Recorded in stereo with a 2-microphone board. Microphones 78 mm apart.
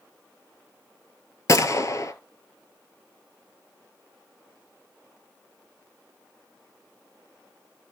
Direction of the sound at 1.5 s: 45° left (ahead or behind).